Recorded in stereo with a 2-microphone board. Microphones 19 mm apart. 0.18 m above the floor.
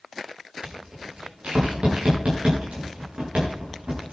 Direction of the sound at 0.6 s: 75° right (ahead or behind).